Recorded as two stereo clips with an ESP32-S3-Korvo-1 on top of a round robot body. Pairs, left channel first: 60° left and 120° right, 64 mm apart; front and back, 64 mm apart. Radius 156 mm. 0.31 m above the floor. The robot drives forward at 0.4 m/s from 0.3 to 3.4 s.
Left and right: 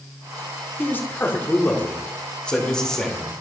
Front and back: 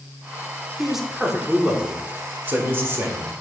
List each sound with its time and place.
0.8 s a man speaking: 90° left, 1.4 m; by 3.3 s 140° left, 1.7 m